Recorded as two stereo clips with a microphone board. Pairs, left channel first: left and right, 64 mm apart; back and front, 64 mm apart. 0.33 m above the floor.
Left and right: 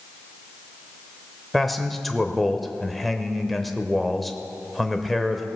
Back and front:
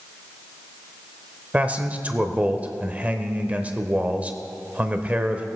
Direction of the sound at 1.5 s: 5° left.